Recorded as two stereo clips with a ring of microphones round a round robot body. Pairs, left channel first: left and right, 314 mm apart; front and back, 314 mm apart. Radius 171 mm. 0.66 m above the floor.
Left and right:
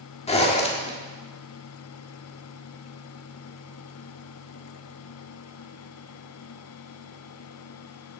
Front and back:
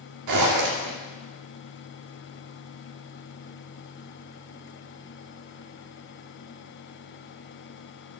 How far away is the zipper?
About 1.7 m.